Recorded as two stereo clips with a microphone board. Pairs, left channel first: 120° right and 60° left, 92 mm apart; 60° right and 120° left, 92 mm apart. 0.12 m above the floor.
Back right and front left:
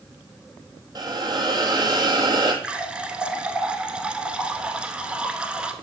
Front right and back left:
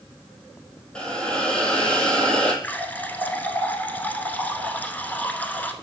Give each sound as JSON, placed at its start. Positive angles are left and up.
{"t": 0.9, "sound": "a hiss", "azimuth_deg": 20, "distance_m": 1.3}
{"t": 2.6, "sound": "a running tap", "azimuth_deg": -10, "distance_m": 0.8}